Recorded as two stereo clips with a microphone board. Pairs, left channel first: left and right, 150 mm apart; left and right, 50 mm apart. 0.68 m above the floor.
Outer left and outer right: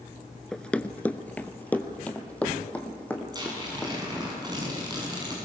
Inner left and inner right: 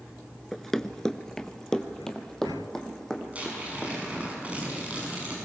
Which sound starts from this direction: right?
Tearing paper, at 3.3 s.